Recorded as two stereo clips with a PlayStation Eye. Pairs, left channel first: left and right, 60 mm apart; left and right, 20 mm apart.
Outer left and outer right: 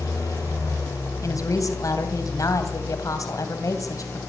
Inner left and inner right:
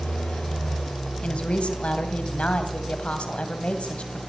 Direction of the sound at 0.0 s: 75° left (ahead or behind).